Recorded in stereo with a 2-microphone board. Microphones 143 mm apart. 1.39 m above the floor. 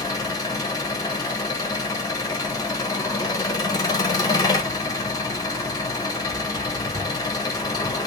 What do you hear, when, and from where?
0.0 s an engine running: 25° left (ahead or behind), 1.0 m